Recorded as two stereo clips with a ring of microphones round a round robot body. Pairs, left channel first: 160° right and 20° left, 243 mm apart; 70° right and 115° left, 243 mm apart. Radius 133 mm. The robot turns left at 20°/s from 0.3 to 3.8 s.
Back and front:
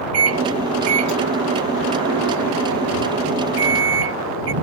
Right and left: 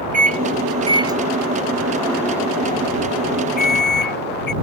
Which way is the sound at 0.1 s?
55° left.